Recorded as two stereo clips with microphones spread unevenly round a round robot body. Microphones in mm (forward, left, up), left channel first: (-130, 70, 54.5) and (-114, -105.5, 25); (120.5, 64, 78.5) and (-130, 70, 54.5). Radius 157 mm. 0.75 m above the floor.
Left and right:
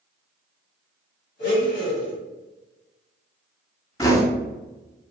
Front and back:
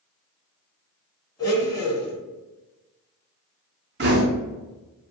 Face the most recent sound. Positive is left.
turn(degrees=170)